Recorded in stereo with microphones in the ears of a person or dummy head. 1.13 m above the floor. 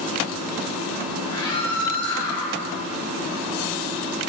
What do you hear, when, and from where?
1.2 s a scream: 70° left (ahead or behind), 6.5 m